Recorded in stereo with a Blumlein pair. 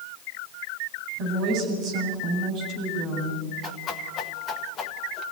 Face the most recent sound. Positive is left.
turn(degrees=25)